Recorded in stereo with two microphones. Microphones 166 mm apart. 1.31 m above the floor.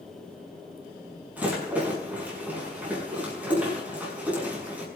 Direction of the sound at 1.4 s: 10° right (ahead or behind).